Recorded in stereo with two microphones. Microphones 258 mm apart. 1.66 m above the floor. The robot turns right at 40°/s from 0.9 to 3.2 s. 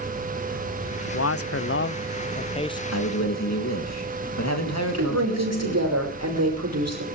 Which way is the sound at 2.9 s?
85° left.